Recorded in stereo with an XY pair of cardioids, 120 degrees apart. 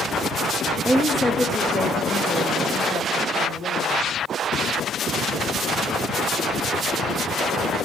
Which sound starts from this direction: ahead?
A woman speaking, at 0.8 s.